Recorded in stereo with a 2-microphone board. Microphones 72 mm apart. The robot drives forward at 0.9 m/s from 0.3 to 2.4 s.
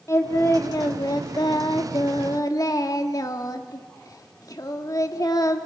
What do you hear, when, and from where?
0.1 s singing: 40° left (ahead or behind), 1.9 m; by 5.7 s 50° left (ahead or behind), 1.6 m